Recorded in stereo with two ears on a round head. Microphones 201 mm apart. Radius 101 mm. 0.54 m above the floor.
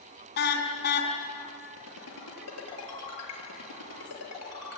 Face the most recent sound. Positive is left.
turn(degrees=75)  # may be behind; listen again after turning